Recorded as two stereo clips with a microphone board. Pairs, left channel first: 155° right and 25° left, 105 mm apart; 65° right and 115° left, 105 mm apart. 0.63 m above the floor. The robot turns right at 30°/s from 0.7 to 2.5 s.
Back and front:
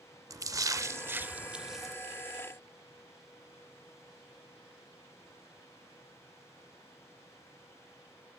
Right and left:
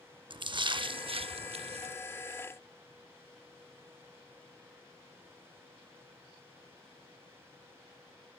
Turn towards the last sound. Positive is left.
turn(degrees=130)